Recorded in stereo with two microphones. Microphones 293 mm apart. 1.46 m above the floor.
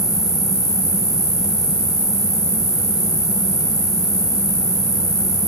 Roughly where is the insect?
Centre.